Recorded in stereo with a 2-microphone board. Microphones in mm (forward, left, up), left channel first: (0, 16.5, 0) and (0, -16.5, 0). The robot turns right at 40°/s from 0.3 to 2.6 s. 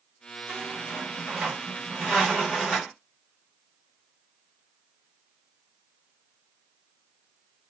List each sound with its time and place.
0.5 s a squeak: 75° right, 1.4 m; by 2.9 s 10° left, 1.4 m